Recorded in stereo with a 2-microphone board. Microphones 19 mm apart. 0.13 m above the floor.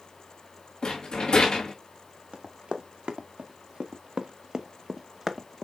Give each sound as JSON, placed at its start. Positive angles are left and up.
{"t": 0.8, "sound": "a rattle", "side_deg": 55, "distance_m": 3.5}
{"t": 2.3, "sound": "running footsteps", "side_deg": -80, "distance_m": 1.9}